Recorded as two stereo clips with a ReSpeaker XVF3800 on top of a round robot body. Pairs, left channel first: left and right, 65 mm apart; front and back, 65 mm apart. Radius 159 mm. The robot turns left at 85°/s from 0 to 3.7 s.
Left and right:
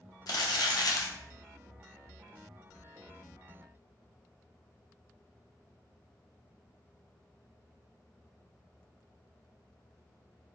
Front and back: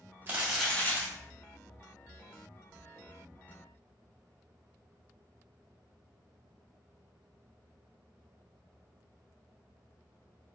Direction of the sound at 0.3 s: 115° left.